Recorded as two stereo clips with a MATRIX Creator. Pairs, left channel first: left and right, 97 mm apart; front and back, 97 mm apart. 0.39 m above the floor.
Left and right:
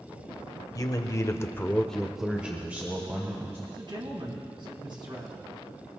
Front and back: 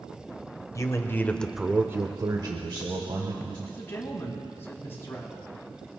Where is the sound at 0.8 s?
50° left, 1.4 m; by 3.6 s 150° right, 2.5 m.